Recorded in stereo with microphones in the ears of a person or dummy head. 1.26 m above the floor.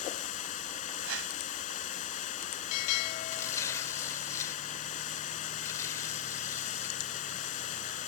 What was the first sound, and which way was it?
Running water, 40° left (ahead or behind).